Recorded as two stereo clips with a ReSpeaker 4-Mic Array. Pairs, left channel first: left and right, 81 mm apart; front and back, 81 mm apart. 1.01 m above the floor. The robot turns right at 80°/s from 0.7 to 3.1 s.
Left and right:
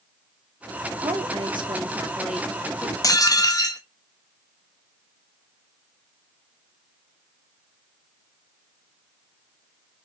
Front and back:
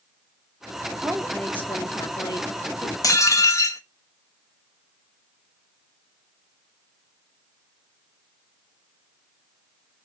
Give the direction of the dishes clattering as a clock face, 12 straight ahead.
11 o'clock.